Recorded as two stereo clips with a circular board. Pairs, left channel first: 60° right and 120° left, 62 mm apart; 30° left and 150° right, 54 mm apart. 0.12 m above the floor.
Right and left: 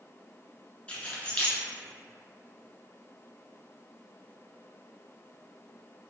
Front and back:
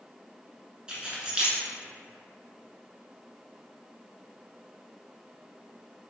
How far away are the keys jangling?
About 0.8 m.